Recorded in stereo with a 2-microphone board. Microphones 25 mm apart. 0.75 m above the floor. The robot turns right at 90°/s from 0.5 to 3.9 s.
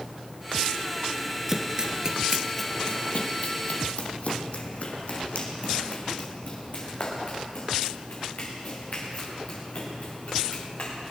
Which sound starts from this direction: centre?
Running footsteps, at 1.5 s.